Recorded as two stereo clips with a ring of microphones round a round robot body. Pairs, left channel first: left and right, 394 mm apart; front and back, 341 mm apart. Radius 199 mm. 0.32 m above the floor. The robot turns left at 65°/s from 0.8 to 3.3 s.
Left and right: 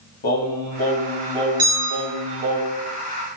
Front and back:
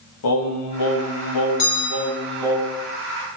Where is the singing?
25° left, 1.8 m; by 2.6 s 90° right, 1.8 m.